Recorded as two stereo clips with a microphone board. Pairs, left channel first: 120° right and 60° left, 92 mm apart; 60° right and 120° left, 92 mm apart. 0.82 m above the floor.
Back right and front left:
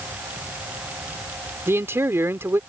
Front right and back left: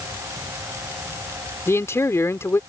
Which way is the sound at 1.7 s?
Straight ahead.